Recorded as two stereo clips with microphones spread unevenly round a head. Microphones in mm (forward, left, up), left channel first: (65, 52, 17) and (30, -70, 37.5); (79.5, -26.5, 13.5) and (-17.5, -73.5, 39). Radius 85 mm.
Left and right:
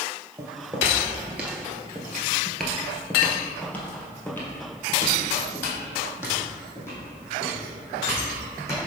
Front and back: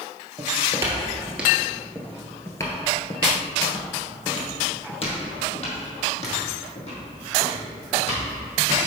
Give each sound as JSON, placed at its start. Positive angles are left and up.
{"t": 0.4, "sound": "footsteps", "azimuth_deg": -160, "distance_m": 1.4}